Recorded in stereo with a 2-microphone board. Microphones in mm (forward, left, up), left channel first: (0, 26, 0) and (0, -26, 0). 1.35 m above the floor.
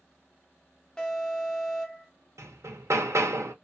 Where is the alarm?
15° left (ahead or behind), 0.9 m.